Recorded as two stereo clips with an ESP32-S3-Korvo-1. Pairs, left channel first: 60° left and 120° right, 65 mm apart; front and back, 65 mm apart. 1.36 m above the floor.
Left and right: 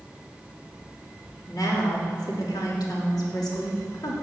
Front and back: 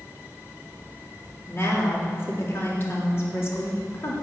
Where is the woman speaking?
50° left, 3.5 m.